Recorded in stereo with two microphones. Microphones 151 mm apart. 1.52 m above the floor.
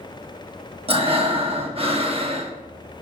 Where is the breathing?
40° right (ahead or behind), 1.2 m.